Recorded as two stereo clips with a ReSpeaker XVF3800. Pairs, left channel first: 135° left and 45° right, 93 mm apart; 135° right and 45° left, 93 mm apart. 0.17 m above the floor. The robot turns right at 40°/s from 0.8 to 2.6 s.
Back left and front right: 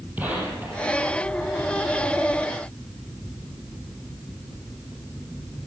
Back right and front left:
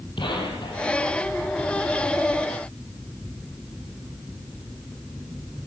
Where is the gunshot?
115° right, 4.5 m; by 1.0 s 105° right, 4.5 m.